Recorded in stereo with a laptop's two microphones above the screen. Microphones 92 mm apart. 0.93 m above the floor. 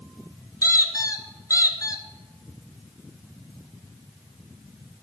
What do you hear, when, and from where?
0.6 s a squeak: 35° left (ahead or behind), 1.1 m